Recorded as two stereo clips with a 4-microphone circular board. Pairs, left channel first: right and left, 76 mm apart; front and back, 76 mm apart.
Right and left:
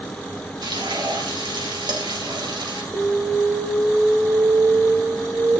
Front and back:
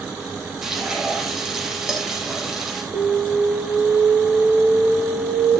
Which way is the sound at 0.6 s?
95° left.